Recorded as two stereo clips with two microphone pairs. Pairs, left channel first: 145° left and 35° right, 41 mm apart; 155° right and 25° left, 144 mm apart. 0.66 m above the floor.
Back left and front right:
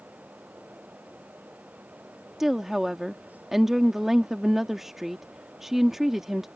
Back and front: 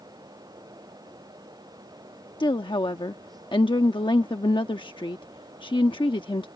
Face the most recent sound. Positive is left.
turn(degrees=-115)